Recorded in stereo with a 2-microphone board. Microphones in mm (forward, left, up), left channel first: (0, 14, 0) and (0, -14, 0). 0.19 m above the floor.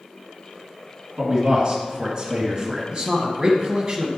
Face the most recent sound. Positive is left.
turn(degrees=-30)  # may be behind; listen again after turning